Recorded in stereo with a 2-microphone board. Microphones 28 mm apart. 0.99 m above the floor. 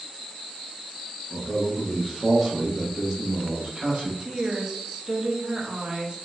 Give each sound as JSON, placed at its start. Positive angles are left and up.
{"t": 1.3, "sound": "a man speaking", "side_deg": 35, "distance_m": 1.1}
{"t": 4.2, "sound": "a woman speaking", "side_deg": -25, "distance_m": 0.6}